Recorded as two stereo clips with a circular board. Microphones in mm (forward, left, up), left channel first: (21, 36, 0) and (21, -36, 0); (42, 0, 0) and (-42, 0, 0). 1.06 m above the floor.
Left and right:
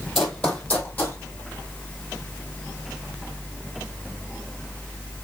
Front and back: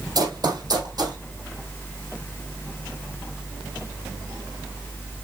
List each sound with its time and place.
0.1 s running footsteps: 175° left, 1.6 m; by 1.2 s 150° left, 2 m